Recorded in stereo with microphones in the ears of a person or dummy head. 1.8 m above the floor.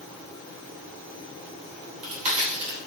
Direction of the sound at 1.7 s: 40° right (ahead or behind).